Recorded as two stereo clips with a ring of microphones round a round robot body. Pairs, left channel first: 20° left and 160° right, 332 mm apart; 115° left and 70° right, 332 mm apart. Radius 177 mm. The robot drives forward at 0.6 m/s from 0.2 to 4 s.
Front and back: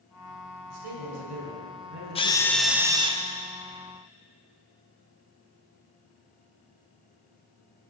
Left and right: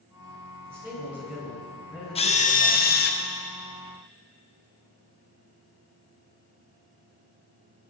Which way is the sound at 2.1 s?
65° left.